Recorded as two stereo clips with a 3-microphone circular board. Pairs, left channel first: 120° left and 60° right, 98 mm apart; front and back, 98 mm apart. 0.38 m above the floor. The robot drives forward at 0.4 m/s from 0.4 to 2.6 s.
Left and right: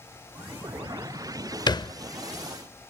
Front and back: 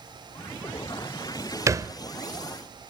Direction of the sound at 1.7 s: 135° left.